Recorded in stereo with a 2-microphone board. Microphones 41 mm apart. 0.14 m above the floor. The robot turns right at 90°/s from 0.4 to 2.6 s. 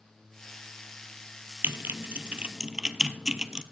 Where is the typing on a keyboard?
70° right (ahead or behind), 0.7 m; by 3.6 s 20° right (ahead or behind), 0.7 m.